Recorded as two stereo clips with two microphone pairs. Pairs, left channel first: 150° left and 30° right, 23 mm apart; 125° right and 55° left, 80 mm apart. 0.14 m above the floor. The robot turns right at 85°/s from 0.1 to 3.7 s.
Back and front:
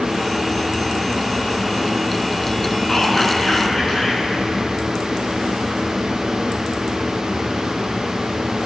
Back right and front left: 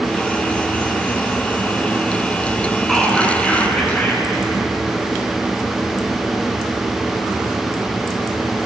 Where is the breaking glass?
No breaking glass in this recording.